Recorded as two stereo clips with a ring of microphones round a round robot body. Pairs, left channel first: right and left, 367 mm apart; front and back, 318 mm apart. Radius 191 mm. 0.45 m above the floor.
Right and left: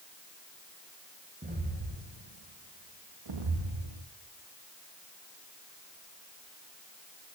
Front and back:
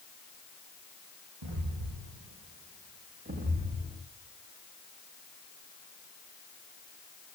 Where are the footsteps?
160° left, 2.0 m; by 4.0 s 100° left, 1.8 m.